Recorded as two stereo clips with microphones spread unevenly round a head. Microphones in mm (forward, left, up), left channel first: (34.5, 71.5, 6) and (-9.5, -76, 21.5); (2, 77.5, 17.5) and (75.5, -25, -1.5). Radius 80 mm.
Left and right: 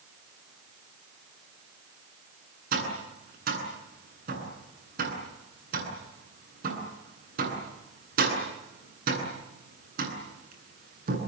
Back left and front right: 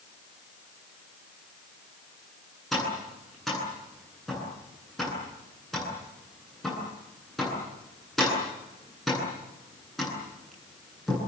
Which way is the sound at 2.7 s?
145° right.